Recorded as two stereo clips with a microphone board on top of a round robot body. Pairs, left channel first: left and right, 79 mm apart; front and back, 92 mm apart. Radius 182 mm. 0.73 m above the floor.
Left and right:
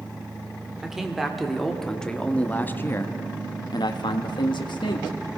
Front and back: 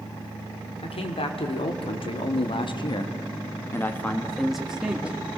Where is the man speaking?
5° right, 2.5 m; by 5.2 s 105° left, 1.8 m.